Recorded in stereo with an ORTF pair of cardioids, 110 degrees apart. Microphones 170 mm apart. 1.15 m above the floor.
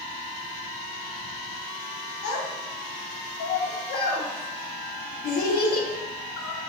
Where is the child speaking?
70° left, 1.3 m.